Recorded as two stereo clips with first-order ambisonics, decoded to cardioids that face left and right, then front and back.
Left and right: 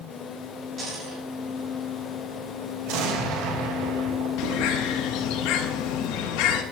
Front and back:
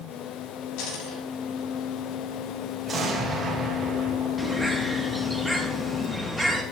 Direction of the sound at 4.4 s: 90° left.